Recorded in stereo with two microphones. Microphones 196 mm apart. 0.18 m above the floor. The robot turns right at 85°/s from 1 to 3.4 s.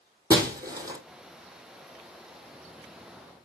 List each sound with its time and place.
0.3 s breaking glass: 20° right (ahead or behind), 1.4 m